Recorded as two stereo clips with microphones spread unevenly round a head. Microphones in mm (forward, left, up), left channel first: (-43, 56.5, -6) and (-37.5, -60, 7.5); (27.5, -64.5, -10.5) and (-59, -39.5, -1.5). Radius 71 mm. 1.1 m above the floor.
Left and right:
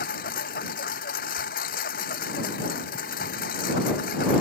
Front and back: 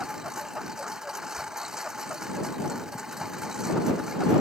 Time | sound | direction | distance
0.0 | a lawn mower | 75° left | ?
1.4 | a thud | 55° left | ?